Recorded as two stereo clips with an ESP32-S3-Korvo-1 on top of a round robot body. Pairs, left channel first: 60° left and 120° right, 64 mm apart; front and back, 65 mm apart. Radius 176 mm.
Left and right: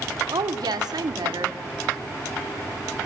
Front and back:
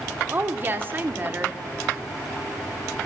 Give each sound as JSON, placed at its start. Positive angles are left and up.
{"t": 0.3, "sound": "a woman speaking", "azimuth_deg": -120, "distance_m": 2.0}